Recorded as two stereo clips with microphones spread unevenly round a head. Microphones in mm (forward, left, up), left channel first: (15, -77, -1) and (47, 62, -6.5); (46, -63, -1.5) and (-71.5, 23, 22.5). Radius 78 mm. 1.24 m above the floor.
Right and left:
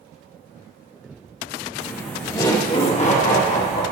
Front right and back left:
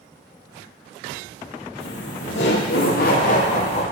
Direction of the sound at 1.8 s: 15° right.